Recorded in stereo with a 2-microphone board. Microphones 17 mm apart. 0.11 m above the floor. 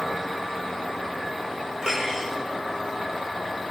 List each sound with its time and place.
1.8 s cutlery clinking: 45° right (ahead or behind), 3.5 m